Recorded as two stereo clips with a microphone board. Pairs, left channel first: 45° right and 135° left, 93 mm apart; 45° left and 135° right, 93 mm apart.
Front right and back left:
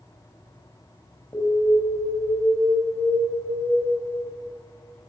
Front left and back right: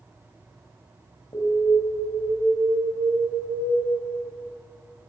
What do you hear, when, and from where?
1.3 s an alarm: 10° left, 7 m